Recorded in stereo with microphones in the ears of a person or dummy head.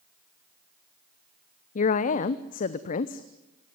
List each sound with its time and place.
1.8 s a woman speaking: 55° left (ahead or behind), 0.8 m